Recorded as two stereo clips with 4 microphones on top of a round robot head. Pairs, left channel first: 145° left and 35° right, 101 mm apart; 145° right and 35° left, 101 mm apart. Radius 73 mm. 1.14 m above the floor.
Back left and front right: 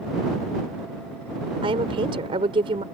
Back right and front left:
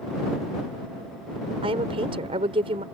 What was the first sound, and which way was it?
A woman speaking, straight ahead.